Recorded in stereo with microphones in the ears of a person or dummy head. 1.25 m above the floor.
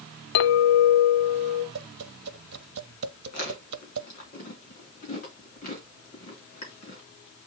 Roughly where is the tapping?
Right.